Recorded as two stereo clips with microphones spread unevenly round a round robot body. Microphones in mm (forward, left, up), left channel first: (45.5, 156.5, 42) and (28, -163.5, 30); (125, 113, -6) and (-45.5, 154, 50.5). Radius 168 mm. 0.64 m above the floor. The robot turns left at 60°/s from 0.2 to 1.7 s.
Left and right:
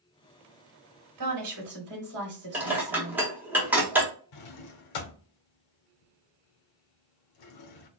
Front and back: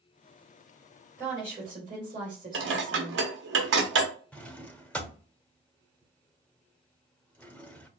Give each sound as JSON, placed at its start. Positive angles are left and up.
{"t": 1.2, "sound": "a woman speaking", "azimuth_deg": -100, "distance_m": 2.5}
{"t": 2.5, "sound": "dishes clattering", "azimuth_deg": -175, "distance_m": 0.8}
{"t": 4.3, "sound": "a drawer", "azimuth_deg": 70, "distance_m": 0.9}